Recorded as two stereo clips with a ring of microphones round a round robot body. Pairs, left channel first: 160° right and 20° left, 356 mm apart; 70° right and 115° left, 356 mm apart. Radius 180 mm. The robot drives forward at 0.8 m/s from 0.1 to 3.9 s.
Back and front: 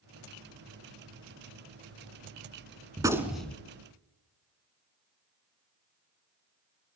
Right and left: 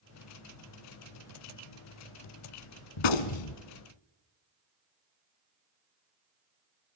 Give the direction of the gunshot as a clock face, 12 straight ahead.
2 o'clock.